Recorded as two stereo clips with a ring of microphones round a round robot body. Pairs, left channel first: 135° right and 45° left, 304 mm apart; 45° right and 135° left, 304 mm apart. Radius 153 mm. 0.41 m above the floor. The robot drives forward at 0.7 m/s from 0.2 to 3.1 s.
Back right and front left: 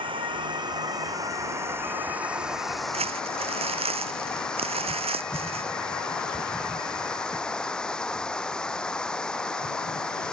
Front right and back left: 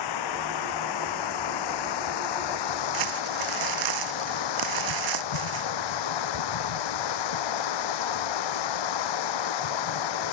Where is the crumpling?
115° left.